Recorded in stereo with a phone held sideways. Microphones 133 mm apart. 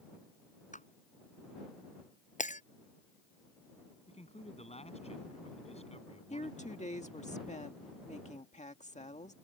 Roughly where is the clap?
Left.